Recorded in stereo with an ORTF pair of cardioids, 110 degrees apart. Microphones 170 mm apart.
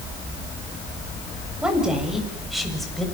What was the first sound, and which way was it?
A woman speaking, 5° right.